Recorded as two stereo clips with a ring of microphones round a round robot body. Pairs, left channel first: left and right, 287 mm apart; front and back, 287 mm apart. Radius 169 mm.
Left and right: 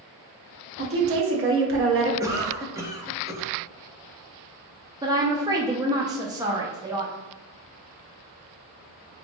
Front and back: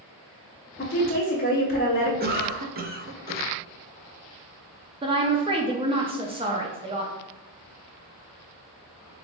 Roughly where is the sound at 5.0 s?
Behind right.